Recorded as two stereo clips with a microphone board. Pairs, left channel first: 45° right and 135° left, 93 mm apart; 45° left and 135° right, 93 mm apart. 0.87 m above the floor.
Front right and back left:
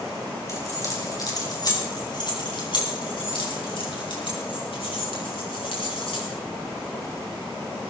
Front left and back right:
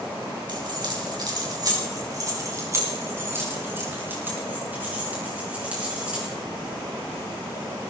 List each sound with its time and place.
0.5 s keys jangling: 100° right, 4 m; by 6.3 s 55° right, 7.5 m